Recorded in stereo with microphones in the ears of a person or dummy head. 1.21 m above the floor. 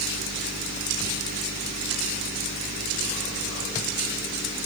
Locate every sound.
Only background noise.